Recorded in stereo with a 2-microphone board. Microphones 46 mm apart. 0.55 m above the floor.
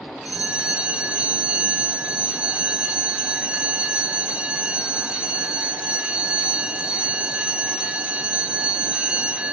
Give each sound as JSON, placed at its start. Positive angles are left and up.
{"t": 0.2, "sound": "a bell", "side_deg": -25, "distance_m": 0.6}